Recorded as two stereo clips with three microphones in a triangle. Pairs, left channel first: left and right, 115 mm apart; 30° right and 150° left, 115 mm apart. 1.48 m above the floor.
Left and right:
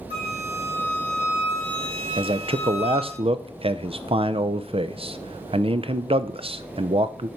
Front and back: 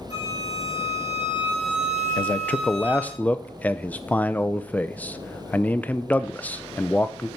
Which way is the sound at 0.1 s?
60° right.